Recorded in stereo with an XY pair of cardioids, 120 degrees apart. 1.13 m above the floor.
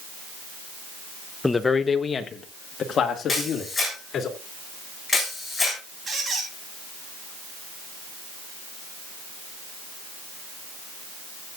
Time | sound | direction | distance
1.4 | a man speaking | 10° left | 0.7 m
3.3 | a camera shutter | 10° left | 7.5 m
6.1 | a squeak | 30° right | 3.5 m